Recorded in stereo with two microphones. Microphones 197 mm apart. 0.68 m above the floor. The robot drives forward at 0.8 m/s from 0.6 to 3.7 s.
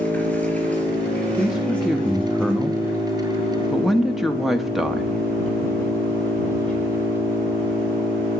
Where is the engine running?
5° left (ahead or behind), 3.5 m.